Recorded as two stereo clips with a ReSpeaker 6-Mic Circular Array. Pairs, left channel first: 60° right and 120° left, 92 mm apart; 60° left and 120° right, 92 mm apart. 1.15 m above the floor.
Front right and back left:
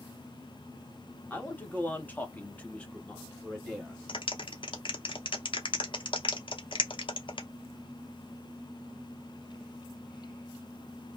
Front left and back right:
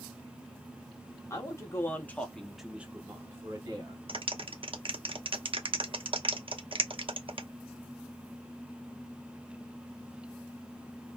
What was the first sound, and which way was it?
A man speaking, 10° left.